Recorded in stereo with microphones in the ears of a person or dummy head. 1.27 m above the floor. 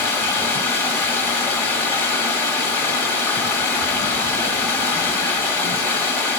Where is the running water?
15° left (ahead or behind), 1.4 m.